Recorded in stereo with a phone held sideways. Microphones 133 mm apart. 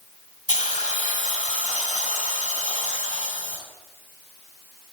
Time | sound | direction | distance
0.5 | a hiss | 70° left (ahead or behind) | 2.5 m